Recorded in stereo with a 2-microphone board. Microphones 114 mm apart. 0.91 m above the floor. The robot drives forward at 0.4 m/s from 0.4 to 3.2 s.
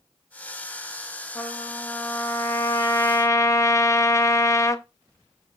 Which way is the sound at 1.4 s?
15° left (ahead or behind).